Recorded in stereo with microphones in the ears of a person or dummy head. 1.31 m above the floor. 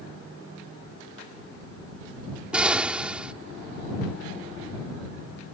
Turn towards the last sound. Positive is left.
turn(degrees=-5)  # may be behind; listen again after turning